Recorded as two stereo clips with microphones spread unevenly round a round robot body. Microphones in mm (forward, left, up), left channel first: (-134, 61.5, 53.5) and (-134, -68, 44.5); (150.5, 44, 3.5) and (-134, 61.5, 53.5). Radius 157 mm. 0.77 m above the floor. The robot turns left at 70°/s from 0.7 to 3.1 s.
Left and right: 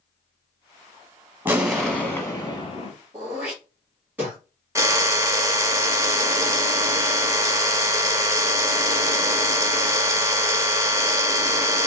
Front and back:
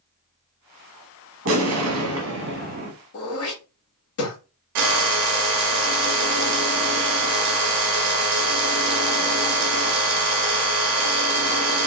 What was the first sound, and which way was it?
An explosion, 155° right.